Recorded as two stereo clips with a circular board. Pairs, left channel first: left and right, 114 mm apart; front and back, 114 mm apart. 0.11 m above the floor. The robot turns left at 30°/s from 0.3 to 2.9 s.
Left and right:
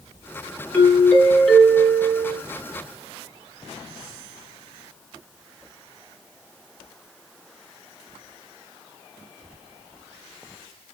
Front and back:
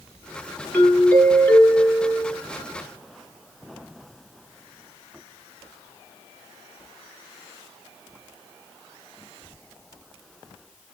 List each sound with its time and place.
0.7 s a doorbell: 40° left, 1.9 m; by 2.4 s 10° right, 1.9 m